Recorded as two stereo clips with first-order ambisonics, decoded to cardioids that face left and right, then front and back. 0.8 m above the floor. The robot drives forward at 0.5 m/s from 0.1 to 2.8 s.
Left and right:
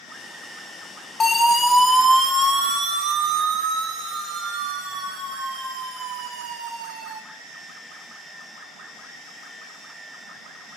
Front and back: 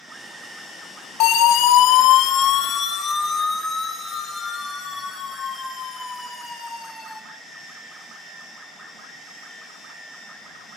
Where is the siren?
20° left, 2.5 m; by 7.2 s 95° right, 7.5 m.